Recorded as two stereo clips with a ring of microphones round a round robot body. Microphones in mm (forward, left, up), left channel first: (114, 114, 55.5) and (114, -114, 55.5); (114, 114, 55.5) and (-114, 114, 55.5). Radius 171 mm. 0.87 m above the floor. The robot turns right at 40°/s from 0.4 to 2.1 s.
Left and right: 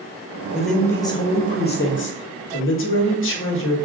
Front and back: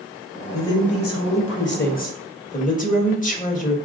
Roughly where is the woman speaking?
Ahead.